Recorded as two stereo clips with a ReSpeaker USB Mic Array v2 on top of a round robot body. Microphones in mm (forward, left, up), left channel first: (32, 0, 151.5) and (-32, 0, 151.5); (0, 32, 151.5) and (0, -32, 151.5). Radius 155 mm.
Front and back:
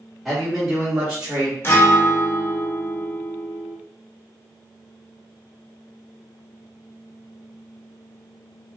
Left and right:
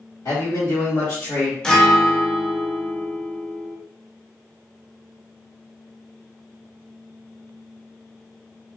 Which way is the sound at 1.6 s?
20° left.